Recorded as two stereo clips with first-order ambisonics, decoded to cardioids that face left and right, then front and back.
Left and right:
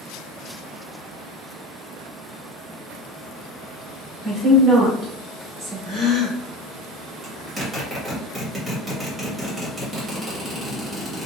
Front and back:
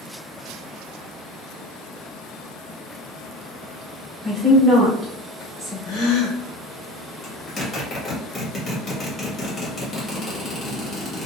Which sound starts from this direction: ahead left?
A gasp, at 5.8 s.